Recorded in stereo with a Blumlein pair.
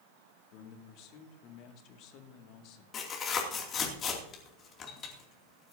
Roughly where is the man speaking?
Ahead left.